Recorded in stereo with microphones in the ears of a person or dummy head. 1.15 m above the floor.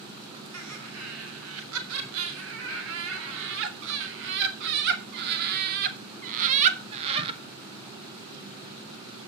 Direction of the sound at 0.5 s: 85° right.